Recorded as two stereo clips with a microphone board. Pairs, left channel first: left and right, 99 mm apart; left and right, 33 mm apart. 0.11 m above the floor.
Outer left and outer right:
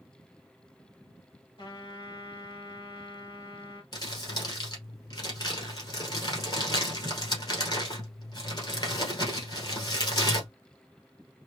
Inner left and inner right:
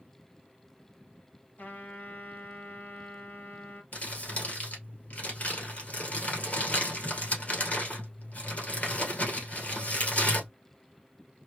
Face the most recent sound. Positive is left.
turn(degrees=50)  # may be behind; listen again after turning